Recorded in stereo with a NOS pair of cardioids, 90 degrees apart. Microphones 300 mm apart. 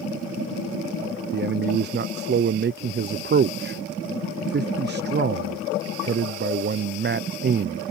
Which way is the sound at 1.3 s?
35° right.